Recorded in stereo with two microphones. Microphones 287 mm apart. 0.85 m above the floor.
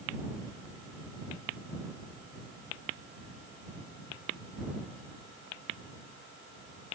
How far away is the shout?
I don't hear a shout.